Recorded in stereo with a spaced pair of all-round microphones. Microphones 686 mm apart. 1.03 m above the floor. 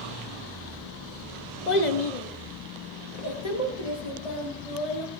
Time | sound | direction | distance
1.7 | a child speaking | 85° left | 1.1 m